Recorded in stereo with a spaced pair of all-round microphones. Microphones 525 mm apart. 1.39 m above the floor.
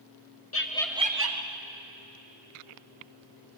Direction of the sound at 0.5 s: 30° left (ahead or behind).